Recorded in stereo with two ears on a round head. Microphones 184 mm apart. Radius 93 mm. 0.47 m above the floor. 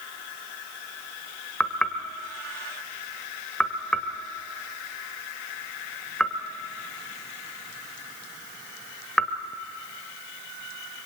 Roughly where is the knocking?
Centre.